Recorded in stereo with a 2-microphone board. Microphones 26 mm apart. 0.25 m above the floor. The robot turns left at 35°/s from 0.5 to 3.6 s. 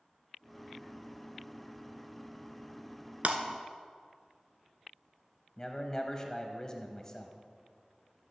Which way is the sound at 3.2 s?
75° right (ahead or behind).